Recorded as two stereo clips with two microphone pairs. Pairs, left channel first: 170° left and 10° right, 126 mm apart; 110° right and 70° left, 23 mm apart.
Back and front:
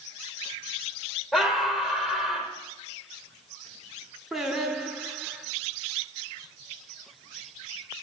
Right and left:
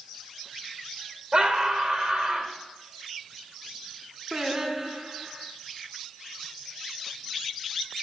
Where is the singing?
75° left, 0.8 m.